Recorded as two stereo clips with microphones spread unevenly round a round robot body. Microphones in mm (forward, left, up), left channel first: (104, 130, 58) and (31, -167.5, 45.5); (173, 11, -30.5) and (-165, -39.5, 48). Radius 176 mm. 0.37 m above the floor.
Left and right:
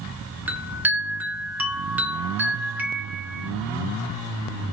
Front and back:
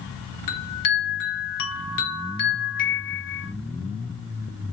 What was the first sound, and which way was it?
A chime, 20° right.